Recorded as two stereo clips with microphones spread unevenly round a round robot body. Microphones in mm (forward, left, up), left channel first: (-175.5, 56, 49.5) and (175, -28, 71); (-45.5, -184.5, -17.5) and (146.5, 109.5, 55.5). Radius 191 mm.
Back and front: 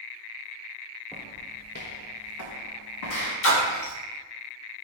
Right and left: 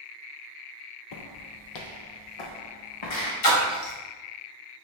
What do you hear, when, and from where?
1.1 s footsteps: 105° right, 0.5 m; by 3.3 s 150° right, 1.4 m
3.4 s a splash: 140° right, 1.4 m